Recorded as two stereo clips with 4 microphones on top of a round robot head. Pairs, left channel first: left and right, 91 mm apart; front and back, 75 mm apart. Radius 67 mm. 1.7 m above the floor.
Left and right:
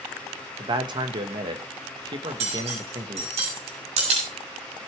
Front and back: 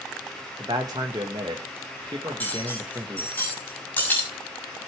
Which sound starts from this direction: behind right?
A man speaking, at 0.6 s.